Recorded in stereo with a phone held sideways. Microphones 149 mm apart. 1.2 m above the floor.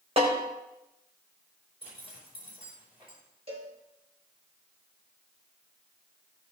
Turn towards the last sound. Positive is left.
turn(degrees=-40)  # may be behind; listen again after turning